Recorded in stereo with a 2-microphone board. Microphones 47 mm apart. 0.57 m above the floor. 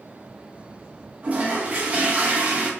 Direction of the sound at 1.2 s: 30° right (ahead or behind).